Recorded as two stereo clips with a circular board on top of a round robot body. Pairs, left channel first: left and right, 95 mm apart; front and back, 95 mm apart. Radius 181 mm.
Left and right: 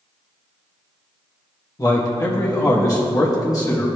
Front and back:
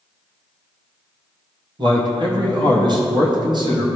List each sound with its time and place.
1.8 s a man speaking: 140° left, 1.8 m